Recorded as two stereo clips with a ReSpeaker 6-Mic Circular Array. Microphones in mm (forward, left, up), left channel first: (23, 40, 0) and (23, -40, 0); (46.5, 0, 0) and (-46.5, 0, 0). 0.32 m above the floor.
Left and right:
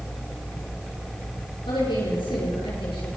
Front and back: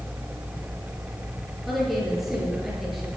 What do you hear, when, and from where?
1.7 s a woman speaking: 95° left, 7.5 m